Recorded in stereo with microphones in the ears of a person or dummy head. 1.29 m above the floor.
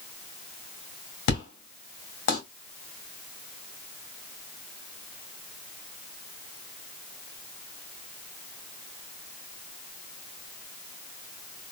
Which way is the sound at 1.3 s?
65° left (ahead or behind).